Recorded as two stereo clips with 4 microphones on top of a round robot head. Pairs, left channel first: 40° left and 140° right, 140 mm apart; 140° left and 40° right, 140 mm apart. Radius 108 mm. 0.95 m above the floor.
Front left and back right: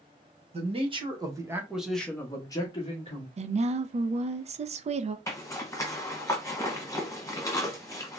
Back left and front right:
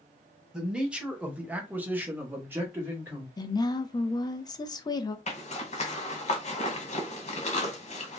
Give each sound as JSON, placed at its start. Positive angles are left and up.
{"t": 0.5, "sound": "a man speaking", "azimuth_deg": -125, "distance_m": 1.2}
{"t": 3.4, "sound": "a woman speaking", "azimuth_deg": -165, "distance_m": 0.5}
{"t": 5.3, "sound": "a zipper", "azimuth_deg": 110, "distance_m": 1.0}